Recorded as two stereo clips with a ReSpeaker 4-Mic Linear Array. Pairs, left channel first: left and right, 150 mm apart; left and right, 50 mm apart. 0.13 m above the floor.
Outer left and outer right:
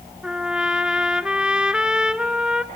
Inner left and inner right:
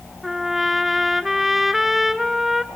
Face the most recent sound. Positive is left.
turn(degrees=-5)  # may be behind; listen again after turning